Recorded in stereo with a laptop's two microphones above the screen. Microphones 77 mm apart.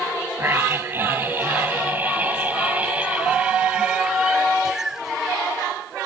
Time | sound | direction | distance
0.4 | a scream | 30° right (ahead or behind) | ?